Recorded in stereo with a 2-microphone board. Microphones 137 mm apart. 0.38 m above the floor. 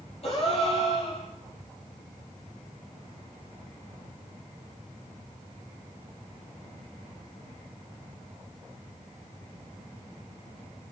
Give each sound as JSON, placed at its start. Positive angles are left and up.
{"t": 0.2, "sound": "a gasp", "side_deg": 45, "distance_m": 7.5}